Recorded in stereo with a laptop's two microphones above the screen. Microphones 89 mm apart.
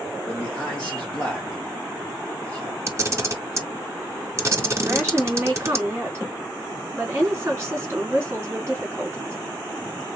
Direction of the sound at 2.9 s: 30° right (ahead or behind).